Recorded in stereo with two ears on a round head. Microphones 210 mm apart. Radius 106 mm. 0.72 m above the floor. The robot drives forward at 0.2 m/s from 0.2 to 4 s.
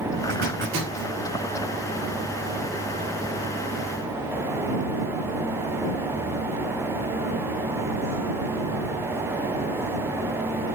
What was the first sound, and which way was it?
A zipper, 70° right (ahead or behind).